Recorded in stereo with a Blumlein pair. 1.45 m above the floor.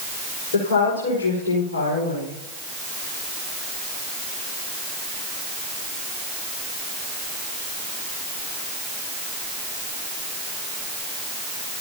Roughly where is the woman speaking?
Ahead left.